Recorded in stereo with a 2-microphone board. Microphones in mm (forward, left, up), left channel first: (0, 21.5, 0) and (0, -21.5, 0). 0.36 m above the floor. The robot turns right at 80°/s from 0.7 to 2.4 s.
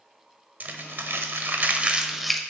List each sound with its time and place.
0.6 s crumpling: 40° right (ahead or behind), 0.6 m; by 2.4 s 10° left (ahead or behind), 0.6 m